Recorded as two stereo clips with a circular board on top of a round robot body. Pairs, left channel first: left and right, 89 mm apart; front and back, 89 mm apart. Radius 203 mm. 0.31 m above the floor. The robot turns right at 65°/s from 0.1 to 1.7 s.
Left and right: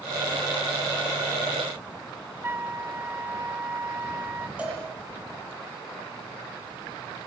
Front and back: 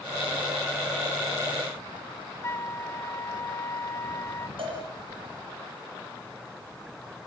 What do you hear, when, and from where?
2.4 s a flute: 40° right, 1.2 m
4.6 s a cowbell: 165° right, 8 m